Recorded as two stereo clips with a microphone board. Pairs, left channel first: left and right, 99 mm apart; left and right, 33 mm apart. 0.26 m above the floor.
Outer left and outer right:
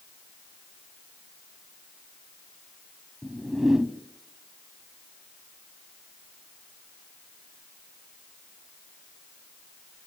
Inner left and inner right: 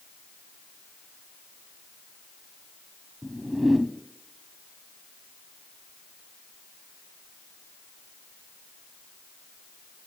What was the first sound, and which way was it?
A whoosh, 5° right (ahead or behind).